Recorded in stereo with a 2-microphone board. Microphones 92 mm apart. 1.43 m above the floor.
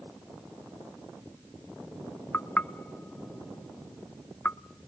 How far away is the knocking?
About 0.5 m.